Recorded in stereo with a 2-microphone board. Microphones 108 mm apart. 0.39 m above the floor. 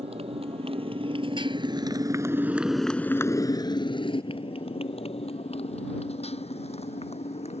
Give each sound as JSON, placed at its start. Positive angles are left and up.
{"t": 0.0, "sound": "a motorcycle", "side_deg": -70}